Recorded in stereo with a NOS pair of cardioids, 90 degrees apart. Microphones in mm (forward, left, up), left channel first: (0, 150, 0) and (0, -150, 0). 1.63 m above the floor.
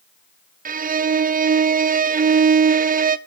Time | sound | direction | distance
0.7 | a violin | 30° right | 0.6 m